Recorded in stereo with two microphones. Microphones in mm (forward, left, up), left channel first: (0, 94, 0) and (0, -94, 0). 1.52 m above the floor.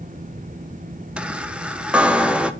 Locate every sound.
1.2 s a chime: 5° right (ahead or behind), 0.6 m